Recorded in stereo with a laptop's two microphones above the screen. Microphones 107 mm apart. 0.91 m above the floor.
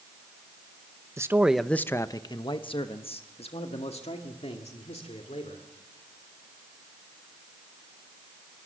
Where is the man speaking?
25° right (ahead or behind), 0.6 m; by 5.7 s 80° left, 3 m.